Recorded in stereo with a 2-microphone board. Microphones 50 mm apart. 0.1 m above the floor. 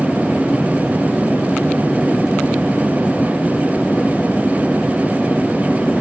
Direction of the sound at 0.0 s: 20° left (ahead or behind).